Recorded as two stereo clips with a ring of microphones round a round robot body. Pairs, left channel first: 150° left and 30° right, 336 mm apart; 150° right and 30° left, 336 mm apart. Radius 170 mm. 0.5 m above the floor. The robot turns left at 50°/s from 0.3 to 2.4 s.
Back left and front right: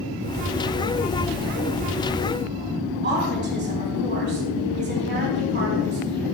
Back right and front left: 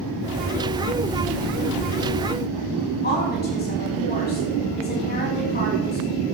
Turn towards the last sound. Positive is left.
turn(degrees=-90)